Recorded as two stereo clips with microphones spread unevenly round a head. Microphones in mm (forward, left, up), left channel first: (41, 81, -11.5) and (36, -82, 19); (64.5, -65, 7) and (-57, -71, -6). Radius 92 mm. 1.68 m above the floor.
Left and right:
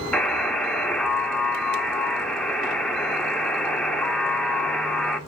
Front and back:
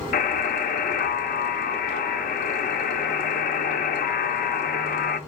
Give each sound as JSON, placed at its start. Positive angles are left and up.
{"t": 0.1, "sound": "a buzzer", "azimuth_deg": 5, "distance_m": 0.7}